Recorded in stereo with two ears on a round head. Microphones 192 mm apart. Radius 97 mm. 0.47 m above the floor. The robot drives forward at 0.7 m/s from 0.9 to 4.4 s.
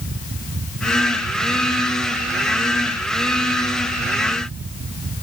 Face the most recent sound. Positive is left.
No sound to turn to.